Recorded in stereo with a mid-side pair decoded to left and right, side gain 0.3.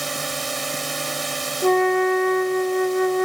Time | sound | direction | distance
0.0 | a drone | 30° right | ?
1.6 | a flute | 5° left | ?